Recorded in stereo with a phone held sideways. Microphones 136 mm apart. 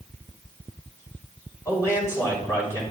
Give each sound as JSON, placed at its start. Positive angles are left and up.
{"t": 1.6, "sound": "a man speaking", "side_deg": 20, "distance_m": 6.0}